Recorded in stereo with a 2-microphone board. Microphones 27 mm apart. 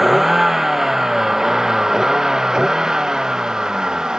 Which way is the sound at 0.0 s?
10° right (ahead or behind).